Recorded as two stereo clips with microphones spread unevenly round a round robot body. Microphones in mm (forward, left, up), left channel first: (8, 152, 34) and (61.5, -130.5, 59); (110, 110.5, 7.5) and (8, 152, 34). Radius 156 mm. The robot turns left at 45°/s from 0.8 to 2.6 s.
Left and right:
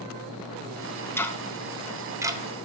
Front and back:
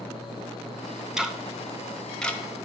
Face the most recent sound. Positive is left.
turn(degrees=-20)